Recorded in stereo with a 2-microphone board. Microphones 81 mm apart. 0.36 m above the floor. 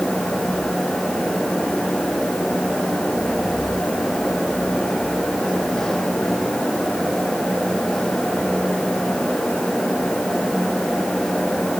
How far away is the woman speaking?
No woman speaking in this recording.